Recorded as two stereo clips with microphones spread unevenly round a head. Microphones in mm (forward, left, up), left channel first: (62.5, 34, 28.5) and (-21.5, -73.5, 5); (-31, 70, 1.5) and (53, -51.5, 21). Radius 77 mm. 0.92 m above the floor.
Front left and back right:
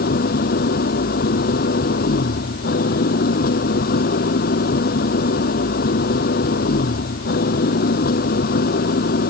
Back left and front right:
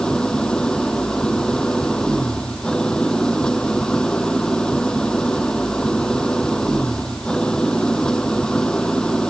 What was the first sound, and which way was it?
An engine running, 40° left.